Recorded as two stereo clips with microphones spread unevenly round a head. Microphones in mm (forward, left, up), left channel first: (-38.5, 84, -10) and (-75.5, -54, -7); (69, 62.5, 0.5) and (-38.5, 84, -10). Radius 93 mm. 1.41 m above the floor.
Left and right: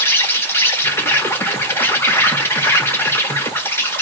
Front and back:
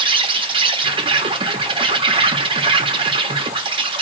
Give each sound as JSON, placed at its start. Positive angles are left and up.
{"t": 0.0, "sound": "an insect", "azimuth_deg": 145, "distance_m": 0.8}